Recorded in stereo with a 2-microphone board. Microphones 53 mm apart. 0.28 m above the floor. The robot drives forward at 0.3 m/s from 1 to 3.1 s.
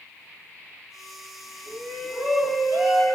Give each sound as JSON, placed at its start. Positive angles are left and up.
{"t": 1.7, "sound": "a shout", "side_deg": 0, "distance_m": 3.0}